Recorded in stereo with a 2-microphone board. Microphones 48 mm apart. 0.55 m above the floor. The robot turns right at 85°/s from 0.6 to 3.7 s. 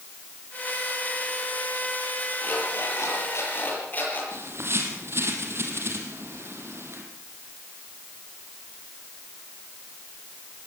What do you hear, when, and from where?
2.4 s an alarm clock: 35° left, 7.5 m; by 4.2 s 145° left, 7.5 m
4.3 s a bird: 60° right (ahead or behind), 3.5 m